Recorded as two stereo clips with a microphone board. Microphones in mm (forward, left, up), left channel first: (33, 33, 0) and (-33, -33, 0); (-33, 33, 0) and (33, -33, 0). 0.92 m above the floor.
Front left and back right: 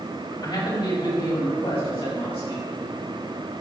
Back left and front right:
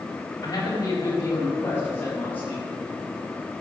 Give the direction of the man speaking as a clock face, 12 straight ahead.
9 o'clock.